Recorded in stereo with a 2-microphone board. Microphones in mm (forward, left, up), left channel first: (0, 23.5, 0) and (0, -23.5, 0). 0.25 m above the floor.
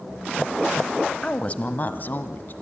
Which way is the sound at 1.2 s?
25° left (ahead or behind).